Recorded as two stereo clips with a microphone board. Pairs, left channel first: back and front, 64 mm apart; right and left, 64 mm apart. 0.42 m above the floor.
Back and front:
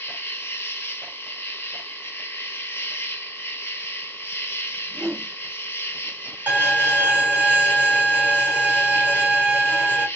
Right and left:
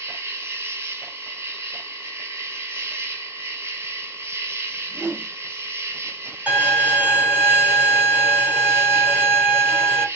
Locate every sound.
0.0 s an insect: 135° left, 0.8 m
4.8 s a whoosh: 40° left, 0.6 m
6.5 s a violin: 45° left, 1.5 m